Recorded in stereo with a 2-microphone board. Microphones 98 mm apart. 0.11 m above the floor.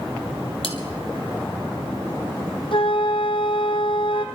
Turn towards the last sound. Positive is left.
turn(degrees=60)  # may be behind; listen again after turning